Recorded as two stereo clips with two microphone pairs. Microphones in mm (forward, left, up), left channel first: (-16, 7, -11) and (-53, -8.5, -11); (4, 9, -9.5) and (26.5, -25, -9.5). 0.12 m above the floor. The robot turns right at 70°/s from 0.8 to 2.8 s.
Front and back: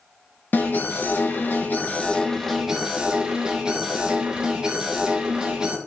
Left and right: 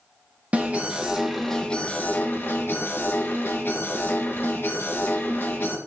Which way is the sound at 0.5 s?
10° right.